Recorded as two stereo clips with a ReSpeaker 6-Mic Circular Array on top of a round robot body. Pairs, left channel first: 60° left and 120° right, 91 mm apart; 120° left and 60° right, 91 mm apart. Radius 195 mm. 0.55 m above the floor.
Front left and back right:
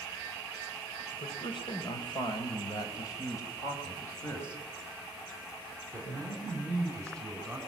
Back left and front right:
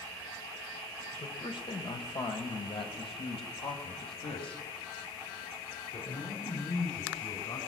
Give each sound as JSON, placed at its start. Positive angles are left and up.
{"t": 1.1, "sound": "a man speaking", "azimuth_deg": 90, "distance_m": 3.5}